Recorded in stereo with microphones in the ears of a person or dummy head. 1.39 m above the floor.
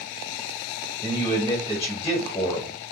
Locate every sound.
1.0 s a man speaking: 20° left (ahead or behind), 1.2 m